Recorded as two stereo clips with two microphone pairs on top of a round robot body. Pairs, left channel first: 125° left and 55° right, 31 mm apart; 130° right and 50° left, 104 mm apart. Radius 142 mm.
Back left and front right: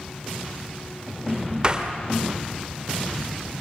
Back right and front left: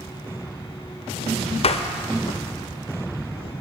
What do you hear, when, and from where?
1.6 s a door slam: 115° right, 1.8 m